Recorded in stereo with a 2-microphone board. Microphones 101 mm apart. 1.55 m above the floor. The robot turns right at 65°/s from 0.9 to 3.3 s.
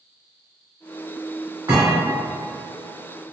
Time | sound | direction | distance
1.7 | a thud | 50° right (ahead or behind) | 2.0 m